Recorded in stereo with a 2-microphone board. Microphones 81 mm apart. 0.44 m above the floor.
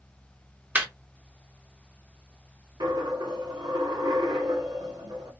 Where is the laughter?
20° right (ahead or behind), 0.7 m.